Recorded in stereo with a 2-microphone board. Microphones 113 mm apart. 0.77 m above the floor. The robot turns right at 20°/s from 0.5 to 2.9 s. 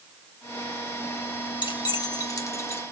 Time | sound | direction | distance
1.6 | keys jangling | 45° left (ahead or behind) | 1.0 m